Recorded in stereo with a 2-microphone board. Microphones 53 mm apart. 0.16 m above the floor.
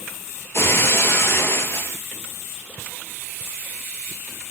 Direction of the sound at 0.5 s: 45° left (ahead or behind).